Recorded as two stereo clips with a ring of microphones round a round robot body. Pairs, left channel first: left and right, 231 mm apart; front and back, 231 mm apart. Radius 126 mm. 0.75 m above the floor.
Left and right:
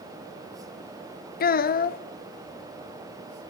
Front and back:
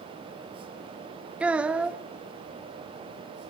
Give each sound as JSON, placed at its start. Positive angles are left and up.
{"t": 1.4, "sound": "a child speaking", "azimuth_deg": 95, "distance_m": 0.7}